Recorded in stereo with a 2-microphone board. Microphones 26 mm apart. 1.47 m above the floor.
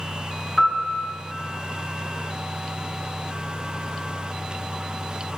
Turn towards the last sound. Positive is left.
turn(degrees=-5)  # may be behind; listen again after turning